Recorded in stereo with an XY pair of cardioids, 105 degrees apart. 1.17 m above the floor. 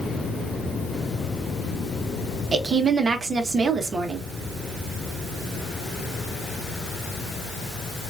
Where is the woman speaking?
35° right, 1.1 m.